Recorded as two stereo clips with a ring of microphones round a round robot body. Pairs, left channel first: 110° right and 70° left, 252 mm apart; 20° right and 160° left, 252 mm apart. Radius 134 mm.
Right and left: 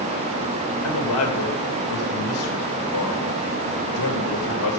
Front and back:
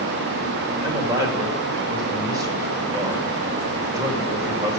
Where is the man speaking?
125° right, 3.5 m.